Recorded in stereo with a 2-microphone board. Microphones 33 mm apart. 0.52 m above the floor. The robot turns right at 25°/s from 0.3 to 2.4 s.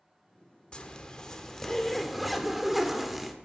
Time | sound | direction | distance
0.7 | a zipper | 140° left | 1.2 m